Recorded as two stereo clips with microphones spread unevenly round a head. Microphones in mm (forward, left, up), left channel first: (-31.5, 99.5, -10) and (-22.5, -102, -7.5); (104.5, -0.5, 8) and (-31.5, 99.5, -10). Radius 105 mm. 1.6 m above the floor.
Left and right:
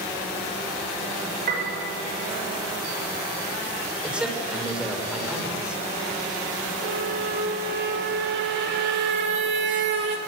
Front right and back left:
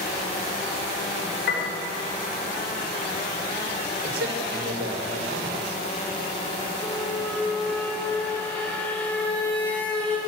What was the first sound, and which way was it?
A piano, 40° right.